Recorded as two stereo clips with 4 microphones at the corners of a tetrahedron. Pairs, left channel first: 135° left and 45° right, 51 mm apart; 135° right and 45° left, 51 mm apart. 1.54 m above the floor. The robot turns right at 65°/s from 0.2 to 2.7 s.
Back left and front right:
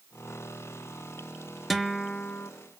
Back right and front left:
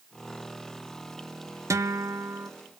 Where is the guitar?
45° left, 0.8 m; by 2.5 s 95° left, 0.8 m.